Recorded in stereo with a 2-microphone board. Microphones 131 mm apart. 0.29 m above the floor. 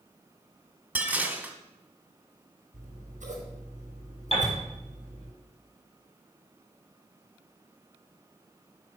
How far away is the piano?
About 5 m.